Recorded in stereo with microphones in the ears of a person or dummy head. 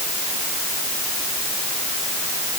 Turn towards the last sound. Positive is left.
No sound to turn to.